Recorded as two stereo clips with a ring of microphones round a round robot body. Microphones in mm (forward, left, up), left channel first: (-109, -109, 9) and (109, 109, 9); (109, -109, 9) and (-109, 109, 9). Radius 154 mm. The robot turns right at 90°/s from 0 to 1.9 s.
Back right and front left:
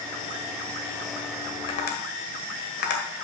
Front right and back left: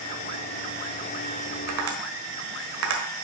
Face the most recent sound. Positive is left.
turn(degrees=170)